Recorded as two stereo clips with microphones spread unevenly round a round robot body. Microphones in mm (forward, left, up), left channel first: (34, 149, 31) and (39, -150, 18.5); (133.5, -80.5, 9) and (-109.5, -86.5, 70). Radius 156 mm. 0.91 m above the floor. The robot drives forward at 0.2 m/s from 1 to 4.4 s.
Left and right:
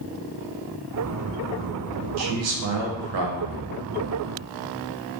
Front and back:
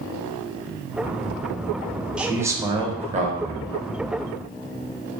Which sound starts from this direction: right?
A man speaking, at 2.2 s.